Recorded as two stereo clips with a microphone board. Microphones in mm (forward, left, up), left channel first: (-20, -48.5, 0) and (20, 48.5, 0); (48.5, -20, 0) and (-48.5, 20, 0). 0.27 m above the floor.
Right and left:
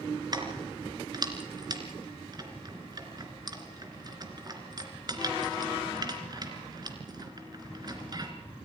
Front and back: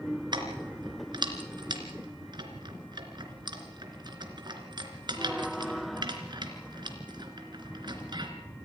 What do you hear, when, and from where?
0.3 s keys jangling: 115° left, 3 m